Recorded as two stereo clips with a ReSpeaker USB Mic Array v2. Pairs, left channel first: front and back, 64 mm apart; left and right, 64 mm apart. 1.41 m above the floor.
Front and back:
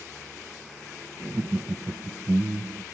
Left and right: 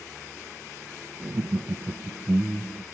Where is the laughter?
130° right; by 2.9 s 160° right.